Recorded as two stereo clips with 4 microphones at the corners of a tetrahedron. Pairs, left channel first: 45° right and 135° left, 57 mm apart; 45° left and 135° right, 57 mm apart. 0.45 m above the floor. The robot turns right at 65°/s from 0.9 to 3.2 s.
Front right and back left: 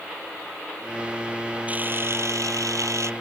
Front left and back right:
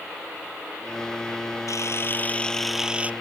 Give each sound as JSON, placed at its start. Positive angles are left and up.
{"t": 1.7, "sound": "a camera shutter", "azimuth_deg": 70}